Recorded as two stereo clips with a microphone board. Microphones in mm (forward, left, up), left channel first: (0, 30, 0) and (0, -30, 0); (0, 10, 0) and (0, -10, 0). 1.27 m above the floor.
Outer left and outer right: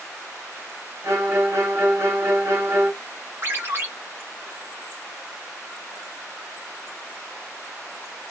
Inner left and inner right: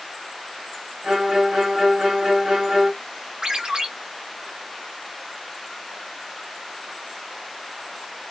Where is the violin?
45° right (ahead or behind), 1.8 m.